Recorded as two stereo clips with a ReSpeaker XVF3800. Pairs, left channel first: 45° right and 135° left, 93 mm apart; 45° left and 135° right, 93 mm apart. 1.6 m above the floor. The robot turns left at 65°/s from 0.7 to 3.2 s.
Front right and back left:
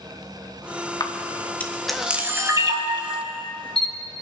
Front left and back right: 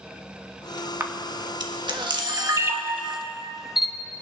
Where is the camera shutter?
75° right, 1.4 m; by 3.9 s 140° left, 1.4 m.